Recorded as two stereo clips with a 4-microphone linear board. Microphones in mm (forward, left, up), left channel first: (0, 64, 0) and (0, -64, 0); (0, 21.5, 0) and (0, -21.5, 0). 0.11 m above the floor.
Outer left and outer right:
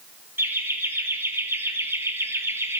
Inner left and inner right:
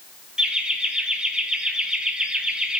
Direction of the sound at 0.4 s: 20° right (ahead or behind).